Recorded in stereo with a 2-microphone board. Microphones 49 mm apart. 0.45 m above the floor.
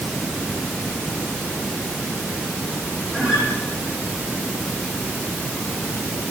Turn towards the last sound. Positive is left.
turn(degrees=-10)  # may be behind; listen again after turning